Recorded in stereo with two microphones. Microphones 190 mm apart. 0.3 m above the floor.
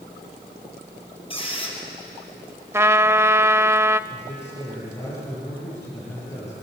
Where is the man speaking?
15° left (ahead or behind), 8.5 m.